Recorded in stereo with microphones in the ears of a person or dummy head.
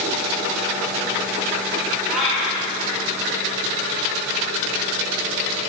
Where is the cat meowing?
5° right (ahead or behind), 1.1 m.